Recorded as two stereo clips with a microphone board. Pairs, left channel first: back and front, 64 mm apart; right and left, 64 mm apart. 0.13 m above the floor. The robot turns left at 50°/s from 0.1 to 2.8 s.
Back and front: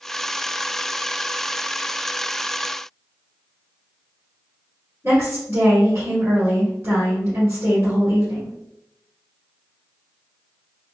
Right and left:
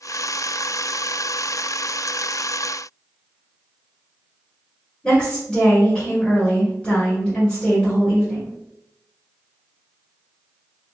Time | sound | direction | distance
5.0 | a woman speaking | 20° right | 1.7 m